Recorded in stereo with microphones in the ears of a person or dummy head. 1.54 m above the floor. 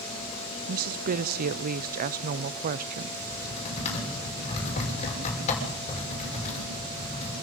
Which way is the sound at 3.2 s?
35° left (ahead or behind).